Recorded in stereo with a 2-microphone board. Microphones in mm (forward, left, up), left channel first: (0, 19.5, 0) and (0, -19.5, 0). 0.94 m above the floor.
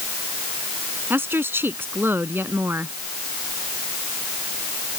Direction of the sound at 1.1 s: 70° right (ahead or behind).